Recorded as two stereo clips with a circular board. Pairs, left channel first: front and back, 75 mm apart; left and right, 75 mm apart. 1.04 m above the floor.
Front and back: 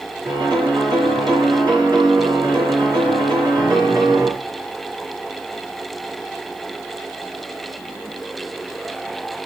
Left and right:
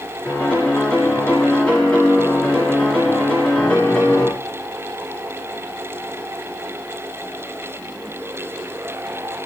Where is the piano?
165° left, 4 m.